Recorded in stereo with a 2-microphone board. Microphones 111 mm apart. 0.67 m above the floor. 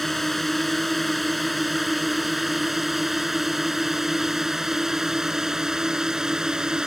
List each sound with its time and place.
0.0 s a drone: centre (ahead or behind); by 6.9 s 5° right (ahead or behind)